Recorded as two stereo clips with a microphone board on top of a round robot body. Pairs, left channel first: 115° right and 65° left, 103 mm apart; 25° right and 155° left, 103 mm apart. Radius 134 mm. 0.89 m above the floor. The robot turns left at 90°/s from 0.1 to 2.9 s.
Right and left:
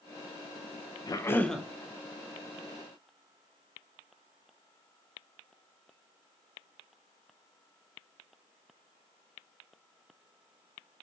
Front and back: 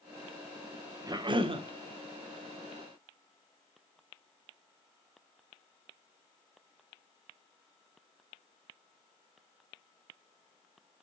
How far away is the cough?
About 0.6 m.